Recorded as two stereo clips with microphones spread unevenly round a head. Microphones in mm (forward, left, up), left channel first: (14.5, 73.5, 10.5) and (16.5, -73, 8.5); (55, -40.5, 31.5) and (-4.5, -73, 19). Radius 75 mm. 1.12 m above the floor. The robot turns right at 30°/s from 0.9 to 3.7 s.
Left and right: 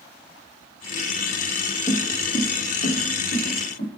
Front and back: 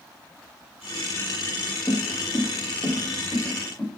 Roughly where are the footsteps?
Ahead left.